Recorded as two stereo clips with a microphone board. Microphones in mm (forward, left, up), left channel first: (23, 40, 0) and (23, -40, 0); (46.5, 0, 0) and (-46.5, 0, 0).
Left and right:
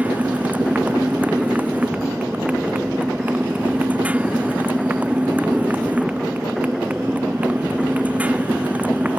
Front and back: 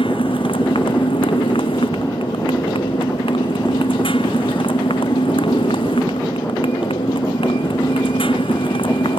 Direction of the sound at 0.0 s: 20° right.